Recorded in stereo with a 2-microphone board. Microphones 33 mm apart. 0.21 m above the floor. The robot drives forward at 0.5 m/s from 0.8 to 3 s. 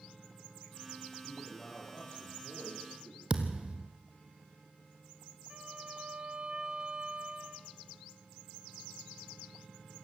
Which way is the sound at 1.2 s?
55° left (ahead or behind).